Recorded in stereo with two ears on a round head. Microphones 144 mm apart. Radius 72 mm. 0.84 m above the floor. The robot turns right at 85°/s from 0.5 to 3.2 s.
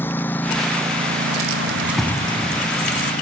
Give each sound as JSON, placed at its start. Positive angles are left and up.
{"t": 0.0, "sound": "a lawn mower", "side_deg": 15}
{"t": 1.7, "sound": "keys jangling", "azimuth_deg": -25}